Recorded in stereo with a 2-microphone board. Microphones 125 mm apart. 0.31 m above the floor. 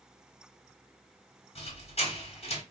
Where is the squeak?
65° left (ahead or behind), 1.1 m.